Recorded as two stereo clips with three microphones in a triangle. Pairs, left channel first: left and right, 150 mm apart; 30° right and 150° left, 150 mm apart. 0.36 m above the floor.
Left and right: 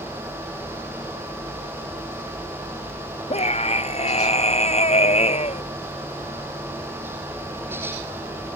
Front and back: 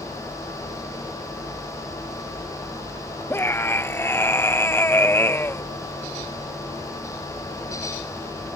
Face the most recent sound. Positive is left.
turn(degrees=45)